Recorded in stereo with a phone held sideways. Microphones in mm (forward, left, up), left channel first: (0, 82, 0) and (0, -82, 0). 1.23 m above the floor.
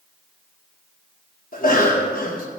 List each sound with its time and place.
1.5 s a cough: 60° left (ahead or behind), 1.4 m